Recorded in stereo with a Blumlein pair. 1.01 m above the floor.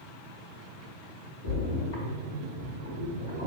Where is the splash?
55° left, 1.0 m.